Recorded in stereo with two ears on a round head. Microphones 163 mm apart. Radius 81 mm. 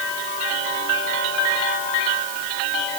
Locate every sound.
Only background noise.